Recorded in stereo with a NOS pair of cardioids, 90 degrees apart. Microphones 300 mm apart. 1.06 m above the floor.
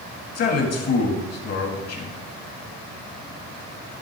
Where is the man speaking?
55° left, 1.7 m.